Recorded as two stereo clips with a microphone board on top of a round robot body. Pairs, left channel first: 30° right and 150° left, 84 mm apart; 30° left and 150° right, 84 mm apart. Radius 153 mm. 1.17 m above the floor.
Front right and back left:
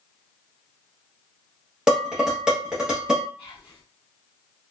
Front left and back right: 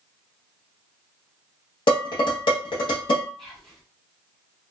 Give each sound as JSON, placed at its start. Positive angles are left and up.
{"t": 1.9, "sound": "dishes clattering", "azimuth_deg": 70, "distance_m": 0.7}
{"t": 3.4, "sound": "whispering", "azimuth_deg": -55, "distance_m": 0.9}